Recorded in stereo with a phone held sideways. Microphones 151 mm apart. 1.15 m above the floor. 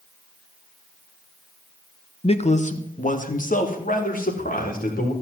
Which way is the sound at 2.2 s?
40° left (ahead or behind).